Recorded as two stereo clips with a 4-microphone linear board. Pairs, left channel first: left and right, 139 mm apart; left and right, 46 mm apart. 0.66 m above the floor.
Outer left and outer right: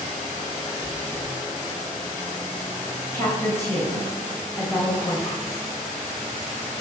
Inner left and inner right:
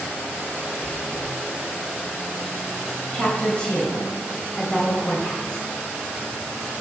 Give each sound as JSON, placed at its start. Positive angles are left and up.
{"t": 0.8, "sound": "chewing", "side_deg": 20, "distance_m": 4.5}
{"t": 3.1, "sound": "a woman speaking", "side_deg": 20, "distance_m": 3.5}